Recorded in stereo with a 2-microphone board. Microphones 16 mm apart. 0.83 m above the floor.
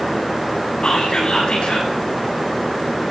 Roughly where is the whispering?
Left.